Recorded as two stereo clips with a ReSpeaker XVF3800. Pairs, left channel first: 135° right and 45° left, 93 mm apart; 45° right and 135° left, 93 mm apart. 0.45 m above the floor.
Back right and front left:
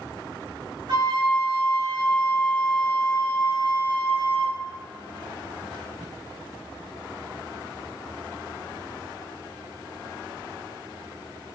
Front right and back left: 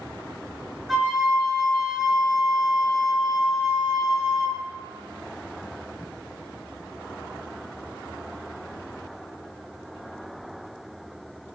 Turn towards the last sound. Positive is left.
turn(degrees=45)